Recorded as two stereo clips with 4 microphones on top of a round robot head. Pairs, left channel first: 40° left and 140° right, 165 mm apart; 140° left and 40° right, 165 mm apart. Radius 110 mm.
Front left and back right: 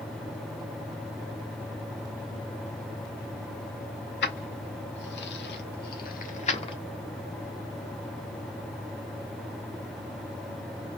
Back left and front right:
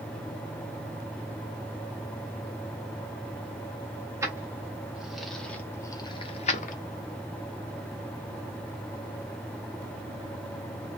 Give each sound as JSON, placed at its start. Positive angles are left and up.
{"t": 4.2, "sound": "keys jangling", "azimuth_deg": 35, "distance_m": 1.4}